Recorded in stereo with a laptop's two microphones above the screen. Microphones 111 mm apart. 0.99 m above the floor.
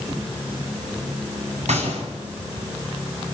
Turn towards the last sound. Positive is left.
turn(degrees=-85)